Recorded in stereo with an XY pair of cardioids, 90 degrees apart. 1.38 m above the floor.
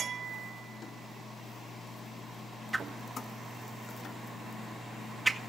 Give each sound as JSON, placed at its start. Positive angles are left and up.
{"t": 2.7, "sound": "a whoosh", "azimuth_deg": -10, "distance_m": 1.9}